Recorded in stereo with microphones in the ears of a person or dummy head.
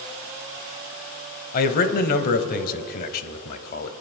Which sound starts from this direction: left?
A man speaking, at 1.5 s.